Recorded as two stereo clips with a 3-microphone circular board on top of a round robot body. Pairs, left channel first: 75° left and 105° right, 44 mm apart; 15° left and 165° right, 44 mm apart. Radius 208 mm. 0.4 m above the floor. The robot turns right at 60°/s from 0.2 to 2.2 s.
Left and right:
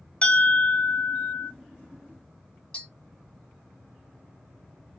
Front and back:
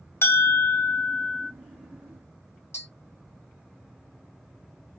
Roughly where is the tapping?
Ahead.